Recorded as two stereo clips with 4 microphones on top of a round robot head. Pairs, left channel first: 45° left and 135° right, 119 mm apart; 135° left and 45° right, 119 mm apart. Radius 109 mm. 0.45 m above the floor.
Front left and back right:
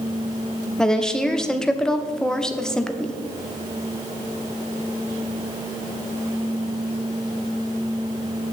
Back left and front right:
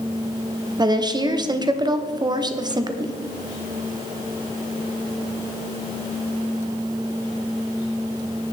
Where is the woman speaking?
35° right, 0.8 m.